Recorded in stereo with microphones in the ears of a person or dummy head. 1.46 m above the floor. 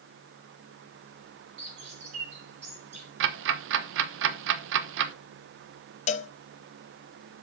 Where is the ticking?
75° right (ahead or behind), 1.0 m.